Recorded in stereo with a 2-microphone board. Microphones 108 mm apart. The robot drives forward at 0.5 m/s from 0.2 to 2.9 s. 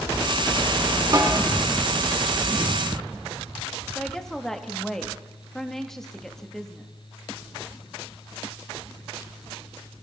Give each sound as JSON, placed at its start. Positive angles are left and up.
{"t": 1.1, "sound": "a snare drum", "side_deg": -35, "distance_m": 2.0}
{"t": 4.0, "sound": "a woman speaking", "side_deg": 5, "distance_m": 1.2}